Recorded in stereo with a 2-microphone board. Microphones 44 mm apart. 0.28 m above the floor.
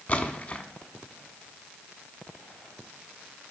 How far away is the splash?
About 0.9 m.